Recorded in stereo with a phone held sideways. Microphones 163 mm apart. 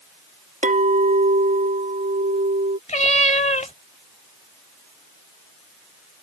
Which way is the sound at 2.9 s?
50° left (ahead or behind).